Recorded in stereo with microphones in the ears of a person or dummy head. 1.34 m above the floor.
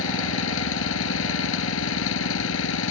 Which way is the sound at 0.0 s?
90° left.